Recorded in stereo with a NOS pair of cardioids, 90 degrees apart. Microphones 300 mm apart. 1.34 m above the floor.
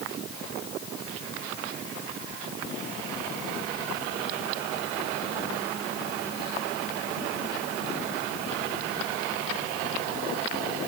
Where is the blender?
No blender in this recording.